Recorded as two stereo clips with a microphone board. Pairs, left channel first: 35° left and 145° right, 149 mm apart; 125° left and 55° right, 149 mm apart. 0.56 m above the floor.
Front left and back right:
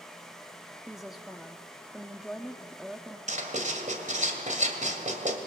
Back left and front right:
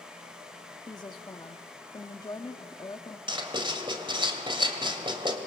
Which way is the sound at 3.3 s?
115° right.